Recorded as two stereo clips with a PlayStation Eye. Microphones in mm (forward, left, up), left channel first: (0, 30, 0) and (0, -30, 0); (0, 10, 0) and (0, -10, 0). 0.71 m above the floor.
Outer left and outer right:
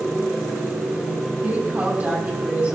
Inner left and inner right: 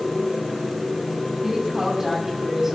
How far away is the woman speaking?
About 6.5 m.